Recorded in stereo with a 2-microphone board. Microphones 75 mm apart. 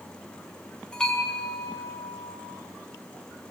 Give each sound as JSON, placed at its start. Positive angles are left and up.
{"t": 0.9, "sound": "a bell", "side_deg": 10, "distance_m": 4.0}